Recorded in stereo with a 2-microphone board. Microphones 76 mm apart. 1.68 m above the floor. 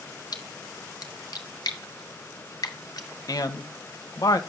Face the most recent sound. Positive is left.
turn(degrees=50)  # may be behind; listen again after turning